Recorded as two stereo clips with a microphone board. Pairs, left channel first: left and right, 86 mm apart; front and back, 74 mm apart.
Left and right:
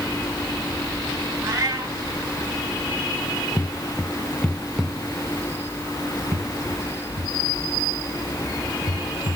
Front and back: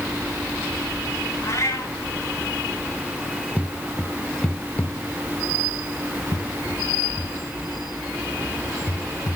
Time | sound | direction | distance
1.4 | a cat meowing | 50° right | 3.5 m
3.6 | footsteps | 120° left | 1.0 m